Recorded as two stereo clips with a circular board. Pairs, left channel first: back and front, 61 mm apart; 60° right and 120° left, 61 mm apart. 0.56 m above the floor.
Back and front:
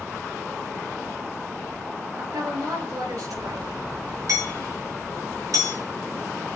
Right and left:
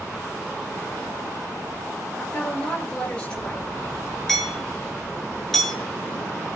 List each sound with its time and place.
2.2 s a woman speaking: 15° left, 9.5 m
4.3 s hammering: 25° left, 7 m